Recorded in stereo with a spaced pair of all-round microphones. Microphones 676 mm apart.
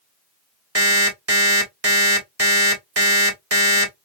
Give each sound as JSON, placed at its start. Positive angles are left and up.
{"t": 0.8, "sound": "an alarm clock", "side_deg": -20, "distance_m": 1.7}